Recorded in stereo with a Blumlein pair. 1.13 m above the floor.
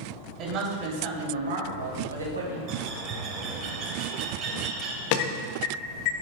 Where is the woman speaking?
35° right, 3 m; by 2.6 s 75° right, 3.5 m.